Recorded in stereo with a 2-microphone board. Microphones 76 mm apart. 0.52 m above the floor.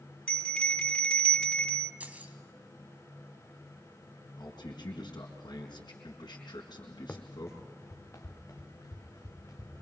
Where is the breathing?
No breathing in this recording.